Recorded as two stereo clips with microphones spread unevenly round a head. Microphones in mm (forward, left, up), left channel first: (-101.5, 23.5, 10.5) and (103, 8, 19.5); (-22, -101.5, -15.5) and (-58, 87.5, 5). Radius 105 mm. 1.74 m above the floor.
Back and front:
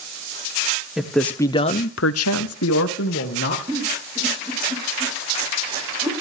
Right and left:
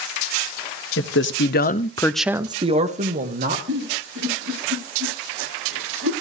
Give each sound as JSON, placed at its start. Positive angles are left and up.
{"t": 1.0, "sound": "a man speaking", "azimuth_deg": -90, "distance_m": 1.3}
{"t": 3.7, "sound": "a giggle", "azimuth_deg": 65, "distance_m": 8.5}